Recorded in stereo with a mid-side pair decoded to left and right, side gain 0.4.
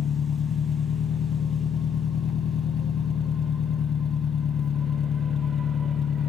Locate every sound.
0.0 s an engine running: 60° left, 0.8 m